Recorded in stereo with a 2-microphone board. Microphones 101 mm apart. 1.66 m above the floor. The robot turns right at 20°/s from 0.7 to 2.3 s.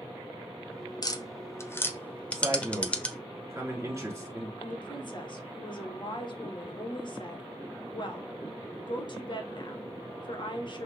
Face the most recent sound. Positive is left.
turn(degrees=45)  # may be behind; listen again after turning